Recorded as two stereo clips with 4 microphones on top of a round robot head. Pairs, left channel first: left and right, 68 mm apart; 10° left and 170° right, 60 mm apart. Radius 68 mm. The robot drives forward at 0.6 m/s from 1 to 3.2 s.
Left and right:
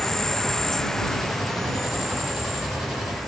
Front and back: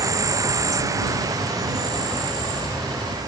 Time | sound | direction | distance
0.0 | an insect | 170° left | 0.8 m